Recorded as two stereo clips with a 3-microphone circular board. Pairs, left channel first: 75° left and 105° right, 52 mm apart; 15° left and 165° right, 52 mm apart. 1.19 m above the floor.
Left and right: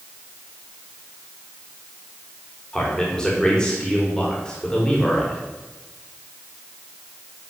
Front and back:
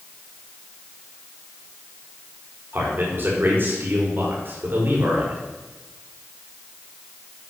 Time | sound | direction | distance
2.7 | a man speaking | 150° left | 4.5 m